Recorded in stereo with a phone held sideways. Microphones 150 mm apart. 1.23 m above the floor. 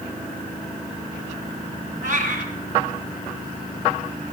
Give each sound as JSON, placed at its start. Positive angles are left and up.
{"t": 2.0, "sound": "a cat meowing", "side_deg": -60, "distance_m": 2.0}